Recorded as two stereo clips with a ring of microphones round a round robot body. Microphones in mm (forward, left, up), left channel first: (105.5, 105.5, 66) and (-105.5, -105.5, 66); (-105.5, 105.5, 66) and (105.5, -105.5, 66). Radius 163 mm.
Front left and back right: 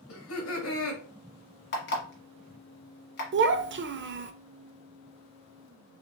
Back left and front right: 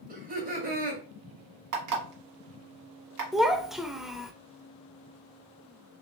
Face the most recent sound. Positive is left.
turn(degrees=-135)